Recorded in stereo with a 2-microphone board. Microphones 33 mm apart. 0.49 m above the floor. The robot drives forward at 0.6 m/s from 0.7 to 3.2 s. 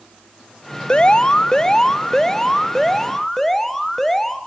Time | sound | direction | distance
0.9 | an alarm | 35° left (ahead or behind) | 0.6 m